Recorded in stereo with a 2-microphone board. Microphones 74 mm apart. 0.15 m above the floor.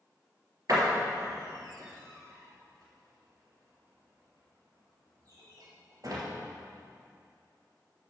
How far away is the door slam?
About 2.5 m.